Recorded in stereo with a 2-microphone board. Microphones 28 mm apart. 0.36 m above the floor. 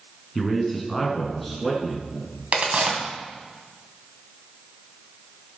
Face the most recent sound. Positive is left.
turn(degrees=-55)  # may be behind; listen again after turning